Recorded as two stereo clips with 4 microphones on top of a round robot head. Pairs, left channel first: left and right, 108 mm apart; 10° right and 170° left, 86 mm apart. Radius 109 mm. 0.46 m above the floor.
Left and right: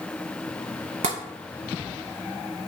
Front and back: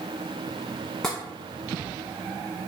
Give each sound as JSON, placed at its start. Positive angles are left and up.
{"t": 1.0, "sound": "tapping", "azimuth_deg": -95, "distance_m": 0.6}